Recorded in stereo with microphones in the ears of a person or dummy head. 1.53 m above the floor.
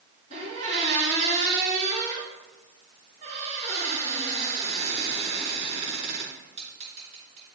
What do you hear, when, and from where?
0.3 s a squeak: 35° right (ahead or behind), 3 m